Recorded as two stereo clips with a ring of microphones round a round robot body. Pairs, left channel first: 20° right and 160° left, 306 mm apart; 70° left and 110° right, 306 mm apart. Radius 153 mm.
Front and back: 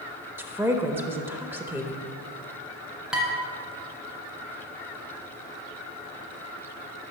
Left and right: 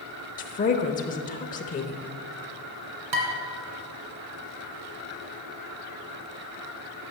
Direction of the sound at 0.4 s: 80° left.